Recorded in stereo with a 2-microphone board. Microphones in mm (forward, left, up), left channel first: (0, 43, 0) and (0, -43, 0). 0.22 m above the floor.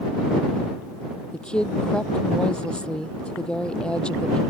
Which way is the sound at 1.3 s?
10° left (ahead or behind).